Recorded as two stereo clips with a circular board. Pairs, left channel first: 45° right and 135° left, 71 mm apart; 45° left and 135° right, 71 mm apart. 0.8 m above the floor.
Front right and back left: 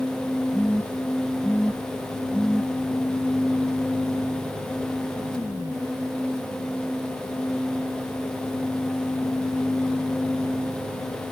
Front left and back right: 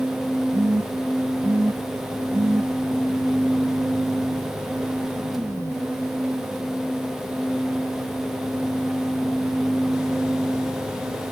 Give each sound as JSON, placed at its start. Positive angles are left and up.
{"t": 0.5, "sound": "a phone buzzing", "azimuth_deg": -120, "distance_m": 0.6}